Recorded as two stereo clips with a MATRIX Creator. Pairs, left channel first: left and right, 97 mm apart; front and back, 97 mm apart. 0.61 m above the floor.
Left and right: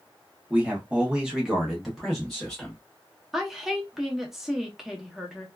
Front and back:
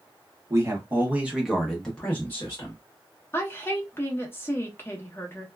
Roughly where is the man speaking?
Behind right.